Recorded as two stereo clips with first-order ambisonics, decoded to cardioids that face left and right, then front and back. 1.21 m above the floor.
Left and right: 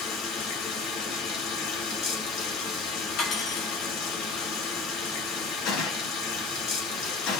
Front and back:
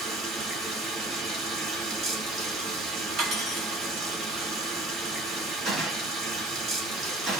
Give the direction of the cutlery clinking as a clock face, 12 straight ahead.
8 o'clock.